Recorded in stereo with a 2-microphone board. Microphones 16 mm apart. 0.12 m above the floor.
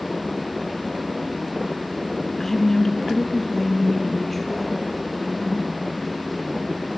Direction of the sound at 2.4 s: 25° left (ahead or behind).